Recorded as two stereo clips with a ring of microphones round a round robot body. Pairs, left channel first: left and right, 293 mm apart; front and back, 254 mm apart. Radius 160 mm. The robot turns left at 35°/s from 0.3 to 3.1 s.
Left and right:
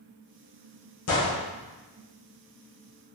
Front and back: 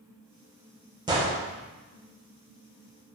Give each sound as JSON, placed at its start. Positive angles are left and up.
{"t": 1.1, "sound": "a gunshot", "azimuth_deg": 115, "distance_m": 0.7}